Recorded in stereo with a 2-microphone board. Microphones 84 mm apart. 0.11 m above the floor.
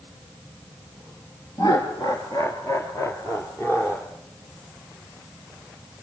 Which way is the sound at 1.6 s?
50° left (ahead or behind).